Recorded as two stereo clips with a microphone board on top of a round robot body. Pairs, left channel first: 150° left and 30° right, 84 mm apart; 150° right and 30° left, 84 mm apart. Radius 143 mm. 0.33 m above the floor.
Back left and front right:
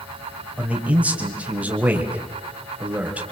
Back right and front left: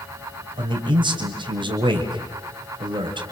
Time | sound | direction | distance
0.6 | a man speaking | 45° left | 3.5 m